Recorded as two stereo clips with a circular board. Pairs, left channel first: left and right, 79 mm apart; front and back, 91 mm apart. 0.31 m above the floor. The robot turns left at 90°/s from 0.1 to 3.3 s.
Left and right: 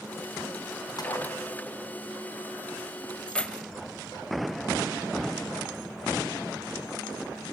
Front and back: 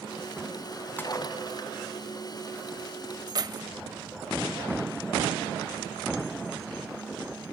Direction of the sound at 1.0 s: 65° left.